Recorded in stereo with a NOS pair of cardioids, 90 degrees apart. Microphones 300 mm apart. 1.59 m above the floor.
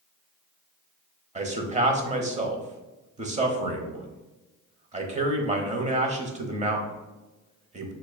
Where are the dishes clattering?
I don't hear dishes clattering.